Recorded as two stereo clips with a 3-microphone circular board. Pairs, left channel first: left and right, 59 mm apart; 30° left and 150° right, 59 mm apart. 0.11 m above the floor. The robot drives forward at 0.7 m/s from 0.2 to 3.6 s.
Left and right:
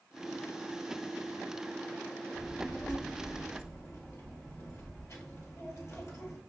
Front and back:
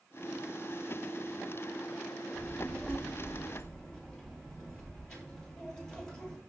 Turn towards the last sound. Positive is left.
turn(degrees=105)